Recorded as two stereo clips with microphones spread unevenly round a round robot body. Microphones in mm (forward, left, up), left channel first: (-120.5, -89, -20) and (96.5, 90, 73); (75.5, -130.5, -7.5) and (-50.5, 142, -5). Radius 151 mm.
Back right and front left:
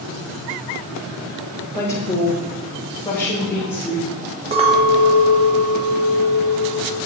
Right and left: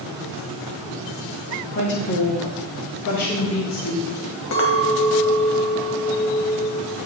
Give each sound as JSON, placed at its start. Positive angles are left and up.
{"t": 1.8, "sound": "a woman speaking", "azimuth_deg": -95, "distance_m": 1.1}
{"t": 4.5, "sound": "a clink", "azimuth_deg": -40, "distance_m": 1.5}